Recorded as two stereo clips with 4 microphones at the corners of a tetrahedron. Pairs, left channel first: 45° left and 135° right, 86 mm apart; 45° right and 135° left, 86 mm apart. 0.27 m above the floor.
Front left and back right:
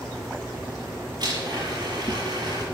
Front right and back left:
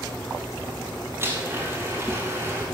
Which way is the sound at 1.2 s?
165° right.